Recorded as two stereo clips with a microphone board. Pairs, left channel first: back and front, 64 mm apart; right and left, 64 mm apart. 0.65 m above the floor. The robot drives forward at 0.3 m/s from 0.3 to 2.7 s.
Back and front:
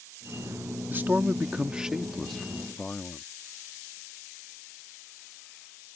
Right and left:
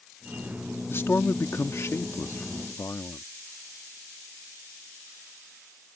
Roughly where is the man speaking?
Ahead right.